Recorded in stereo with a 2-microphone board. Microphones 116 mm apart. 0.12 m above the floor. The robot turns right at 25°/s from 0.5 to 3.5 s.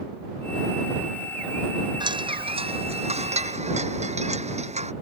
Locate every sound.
2.0 s a chime: 140° right; by 4.9 s 105° right